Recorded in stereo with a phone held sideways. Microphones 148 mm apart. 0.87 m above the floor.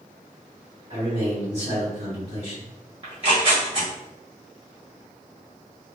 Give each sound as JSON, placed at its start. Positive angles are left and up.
{"t": 0.9, "sound": "a man speaking", "side_deg": -45, "distance_m": 1.5}
{"t": 3.0, "sound": "tearing paper", "side_deg": -40, "distance_m": 1.2}